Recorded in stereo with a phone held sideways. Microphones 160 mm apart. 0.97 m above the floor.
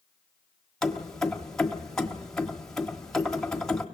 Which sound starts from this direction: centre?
Keys jangling, at 0.8 s.